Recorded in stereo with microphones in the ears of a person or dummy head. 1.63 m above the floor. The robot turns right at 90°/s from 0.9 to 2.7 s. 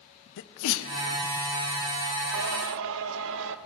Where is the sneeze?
70° left (ahead or behind), 0.5 m; by 0.9 s 65° left (ahead or behind), 0.5 m.